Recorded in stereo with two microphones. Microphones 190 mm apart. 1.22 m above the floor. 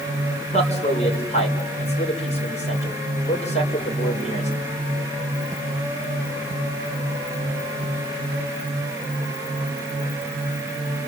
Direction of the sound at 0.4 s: 35° left (ahead or behind).